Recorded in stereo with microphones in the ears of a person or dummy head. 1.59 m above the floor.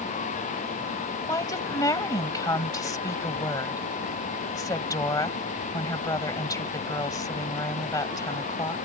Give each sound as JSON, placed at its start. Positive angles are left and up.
{"t": 1.3, "sound": "a woman speaking", "side_deg": 15}